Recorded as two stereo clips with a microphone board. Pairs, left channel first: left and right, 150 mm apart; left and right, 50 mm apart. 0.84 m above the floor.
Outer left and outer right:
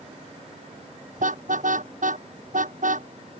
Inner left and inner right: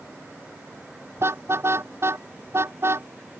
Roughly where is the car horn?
Right.